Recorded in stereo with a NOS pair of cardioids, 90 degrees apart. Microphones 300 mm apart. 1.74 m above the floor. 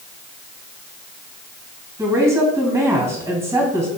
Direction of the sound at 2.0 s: 10° right.